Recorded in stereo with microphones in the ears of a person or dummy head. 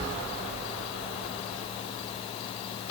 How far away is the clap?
I don't hear a clap.